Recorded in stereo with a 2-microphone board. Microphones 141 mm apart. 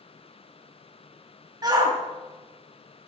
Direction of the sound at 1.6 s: 30° right (ahead or behind).